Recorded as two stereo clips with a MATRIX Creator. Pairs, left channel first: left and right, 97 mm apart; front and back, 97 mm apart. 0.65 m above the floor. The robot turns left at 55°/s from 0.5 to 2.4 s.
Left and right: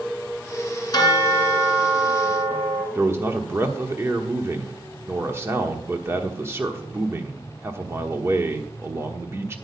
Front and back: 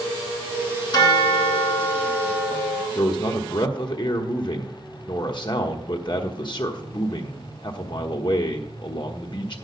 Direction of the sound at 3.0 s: 30° right.